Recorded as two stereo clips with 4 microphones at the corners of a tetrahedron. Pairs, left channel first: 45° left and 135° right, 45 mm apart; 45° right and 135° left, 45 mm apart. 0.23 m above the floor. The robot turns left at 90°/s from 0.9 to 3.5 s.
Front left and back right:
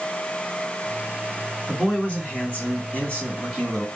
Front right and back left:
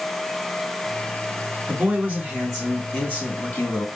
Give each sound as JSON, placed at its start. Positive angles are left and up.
{"t": 1.7, "sound": "a man speaking", "azimuth_deg": 125, "distance_m": 1.9}